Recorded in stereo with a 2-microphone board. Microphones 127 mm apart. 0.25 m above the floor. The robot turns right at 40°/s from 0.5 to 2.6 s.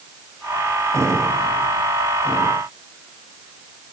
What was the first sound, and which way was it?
Only background noise.